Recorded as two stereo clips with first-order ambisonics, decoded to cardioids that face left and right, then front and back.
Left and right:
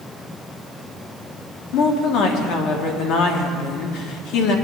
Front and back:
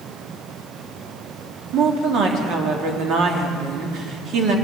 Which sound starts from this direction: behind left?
A woman speaking, at 1.7 s.